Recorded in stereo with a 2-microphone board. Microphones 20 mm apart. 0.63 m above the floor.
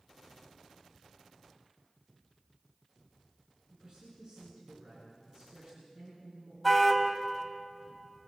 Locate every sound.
3.7 s a man speaking: 45° right (ahead or behind), 9.5 m
6.6 s a car horn: 5° left (ahead or behind), 2 m